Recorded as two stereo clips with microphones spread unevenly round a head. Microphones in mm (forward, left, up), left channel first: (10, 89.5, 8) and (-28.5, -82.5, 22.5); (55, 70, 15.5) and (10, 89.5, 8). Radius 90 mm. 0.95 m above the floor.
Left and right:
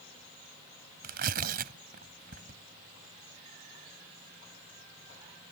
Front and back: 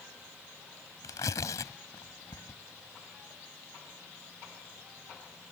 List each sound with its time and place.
1.0 s tearing paper: 60° right